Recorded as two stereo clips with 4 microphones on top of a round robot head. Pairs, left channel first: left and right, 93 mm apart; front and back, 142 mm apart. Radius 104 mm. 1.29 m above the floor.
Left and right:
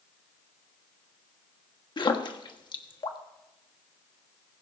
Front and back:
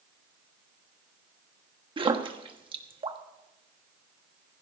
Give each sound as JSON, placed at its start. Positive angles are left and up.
{"t": 2.0, "sound": "a splash", "azimuth_deg": 125, "distance_m": 1.4}